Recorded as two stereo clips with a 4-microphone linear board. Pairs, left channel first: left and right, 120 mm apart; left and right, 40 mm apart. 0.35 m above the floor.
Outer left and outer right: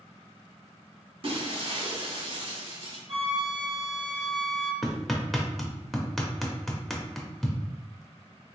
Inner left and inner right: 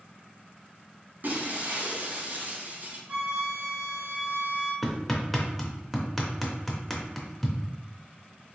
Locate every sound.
1.2 s breaking glass: 50° right (ahead or behind), 1.1 m
3.1 s a flute: 45° right (ahead or behind), 1.5 m
4.8 s hammering: centre (ahead or behind), 0.7 m